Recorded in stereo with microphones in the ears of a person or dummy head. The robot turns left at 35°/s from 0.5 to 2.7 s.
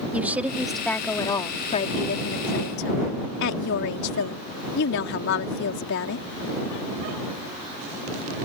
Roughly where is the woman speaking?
Behind.